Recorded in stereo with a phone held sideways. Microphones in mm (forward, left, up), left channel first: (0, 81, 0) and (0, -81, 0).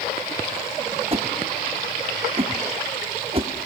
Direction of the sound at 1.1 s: 35° right (ahead or behind).